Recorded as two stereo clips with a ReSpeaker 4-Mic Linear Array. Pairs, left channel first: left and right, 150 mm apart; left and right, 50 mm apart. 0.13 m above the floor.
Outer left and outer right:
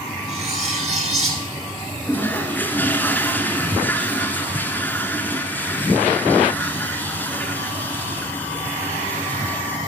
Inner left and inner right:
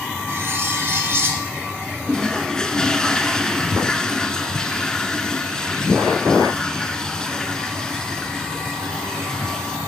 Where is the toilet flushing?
15° left (ahead or behind), 0.9 m.